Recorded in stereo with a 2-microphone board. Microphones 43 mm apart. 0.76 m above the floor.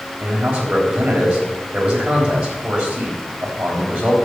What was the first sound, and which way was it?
A man speaking, 20° right (ahead or behind).